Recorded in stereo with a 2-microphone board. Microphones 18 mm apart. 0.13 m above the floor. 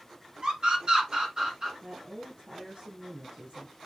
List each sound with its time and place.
0.4 s a scream: 50° right (ahead or behind), 2.5 m; by 1.7 s 35° right (ahead or behind), 1.9 m
1.8 s a woman speaking: 70° right (ahead or behind), 3 m